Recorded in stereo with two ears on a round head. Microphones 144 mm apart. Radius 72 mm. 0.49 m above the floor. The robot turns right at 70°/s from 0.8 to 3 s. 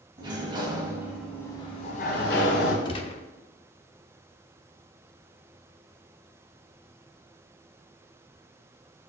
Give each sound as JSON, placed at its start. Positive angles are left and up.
{"t": 0.2, "sound": "a sliding door", "azimuth_deg": -30, "distance_m": 1.9}
{"t": 2.9, "sound": "a gunshot", "side_deg": 30, "distance_m": 0.8}